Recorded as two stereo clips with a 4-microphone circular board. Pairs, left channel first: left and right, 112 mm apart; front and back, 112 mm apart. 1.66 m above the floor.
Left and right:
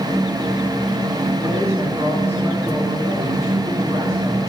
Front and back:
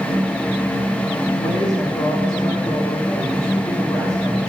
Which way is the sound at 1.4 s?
25° right.